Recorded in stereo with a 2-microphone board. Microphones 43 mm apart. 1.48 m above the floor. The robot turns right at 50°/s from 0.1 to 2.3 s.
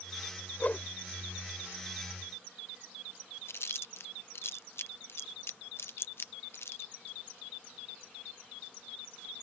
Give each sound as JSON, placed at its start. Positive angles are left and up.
{"t": 0.6, "sound": "a whoosh", "side_deg": 40}
{"t": 3.5, "sound": "chewing", "side_deg": 65}